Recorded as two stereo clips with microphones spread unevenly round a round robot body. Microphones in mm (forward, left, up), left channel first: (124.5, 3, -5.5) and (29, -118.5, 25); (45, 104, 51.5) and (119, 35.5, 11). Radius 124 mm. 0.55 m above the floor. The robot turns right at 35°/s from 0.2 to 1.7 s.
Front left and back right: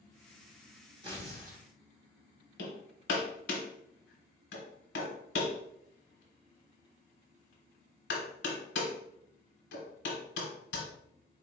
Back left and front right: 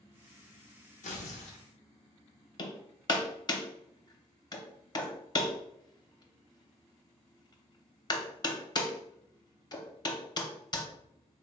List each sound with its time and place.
1.0 s tearing paper: 160° left, 0.5 m; by 1.6 s straight behind, 0.5 m
2.6 s hammering: 95° left, 0.8 m